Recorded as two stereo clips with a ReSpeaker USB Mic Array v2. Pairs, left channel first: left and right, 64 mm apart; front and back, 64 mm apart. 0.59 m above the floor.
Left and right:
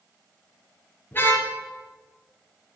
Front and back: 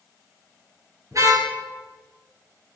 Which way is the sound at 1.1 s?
150° left.